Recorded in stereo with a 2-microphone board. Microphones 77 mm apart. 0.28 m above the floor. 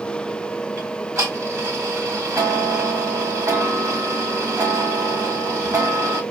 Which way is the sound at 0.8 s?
40° right (ahead or behind).